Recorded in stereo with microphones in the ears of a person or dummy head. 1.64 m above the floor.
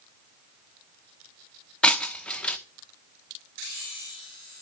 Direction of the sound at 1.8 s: 5° left (ahead or behind).